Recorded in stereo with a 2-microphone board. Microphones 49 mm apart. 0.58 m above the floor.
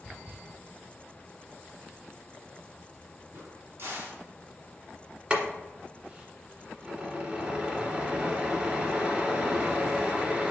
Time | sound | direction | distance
3.3 | a crack | 65° right (ahead or behind) | 2.5 m
5.3 | boiling | 25° right (ahead or behind) | 1.6 m